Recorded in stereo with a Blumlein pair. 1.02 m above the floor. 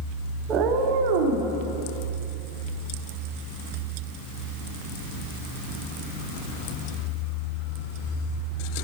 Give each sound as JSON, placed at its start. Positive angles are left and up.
{"t": 0.5, "sound": "a cat meowing", "azimuth_deg": -25, "distance_m": 1.0}